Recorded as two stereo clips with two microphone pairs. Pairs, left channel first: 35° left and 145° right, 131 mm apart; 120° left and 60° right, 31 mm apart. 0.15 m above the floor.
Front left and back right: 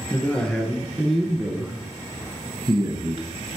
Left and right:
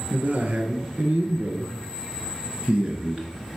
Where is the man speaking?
40° right, 2 m; by 3.6 s 120° right, 1.5 m.